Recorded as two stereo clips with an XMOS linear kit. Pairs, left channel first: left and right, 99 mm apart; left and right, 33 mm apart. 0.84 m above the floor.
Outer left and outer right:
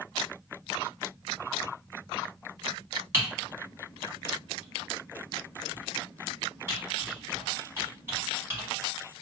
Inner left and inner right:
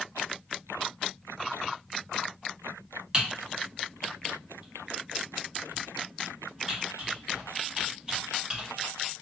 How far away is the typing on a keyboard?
About 1.4 m.